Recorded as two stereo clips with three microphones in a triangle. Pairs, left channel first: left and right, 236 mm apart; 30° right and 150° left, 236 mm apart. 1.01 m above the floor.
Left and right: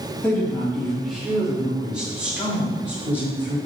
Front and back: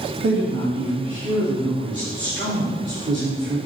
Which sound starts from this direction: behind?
A woman speaking, at 0.2 s.